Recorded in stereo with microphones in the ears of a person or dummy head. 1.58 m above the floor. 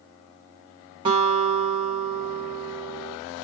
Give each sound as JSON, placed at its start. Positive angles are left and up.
{"t": 1.1, "sound": "a guitar", "side_deg": -20, "distance_m": 1.0}